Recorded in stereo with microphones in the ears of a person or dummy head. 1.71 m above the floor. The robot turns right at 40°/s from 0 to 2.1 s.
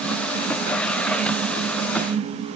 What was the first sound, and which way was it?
Only background noise.